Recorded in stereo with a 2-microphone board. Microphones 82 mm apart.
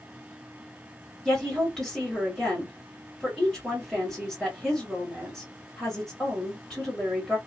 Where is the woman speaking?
5° left (ahead or behind), 1.6 m.